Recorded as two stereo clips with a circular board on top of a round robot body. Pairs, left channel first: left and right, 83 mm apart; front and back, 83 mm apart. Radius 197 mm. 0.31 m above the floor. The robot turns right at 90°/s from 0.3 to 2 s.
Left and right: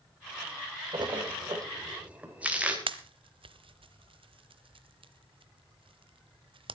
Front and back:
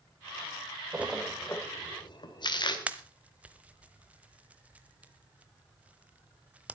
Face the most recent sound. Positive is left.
turn(degrees=-105)